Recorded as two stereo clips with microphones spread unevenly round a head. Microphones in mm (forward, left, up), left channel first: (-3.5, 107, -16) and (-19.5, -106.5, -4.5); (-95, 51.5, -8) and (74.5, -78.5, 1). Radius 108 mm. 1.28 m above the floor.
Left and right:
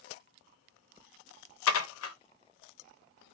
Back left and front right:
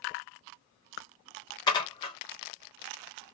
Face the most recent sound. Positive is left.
turn(degrees=70)